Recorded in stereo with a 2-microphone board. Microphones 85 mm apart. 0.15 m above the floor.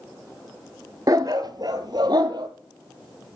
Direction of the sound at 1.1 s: 45° right (ahead or behind).